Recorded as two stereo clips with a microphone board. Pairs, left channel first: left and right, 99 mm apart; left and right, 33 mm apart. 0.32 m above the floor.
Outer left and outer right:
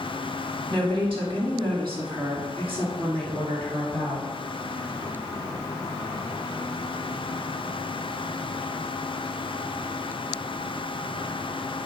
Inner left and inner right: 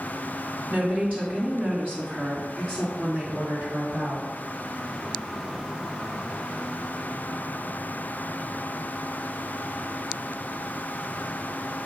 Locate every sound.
0.7 s a woman speaking: 55° right (ahead or behind), 2.5 m; by 4.3 s 60° right (ahead or behind), 4 m